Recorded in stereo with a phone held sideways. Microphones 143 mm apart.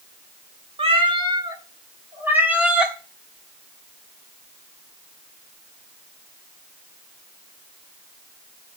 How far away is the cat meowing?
About 1.7 m.